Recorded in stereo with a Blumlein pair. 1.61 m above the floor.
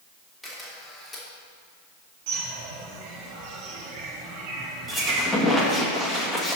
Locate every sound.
0.4 s a camera shutter: 5° right, 2.5 m
2.3 s a bird: 45° right, 2 m
4.9 s a squeak: straight ahead, 1.8 m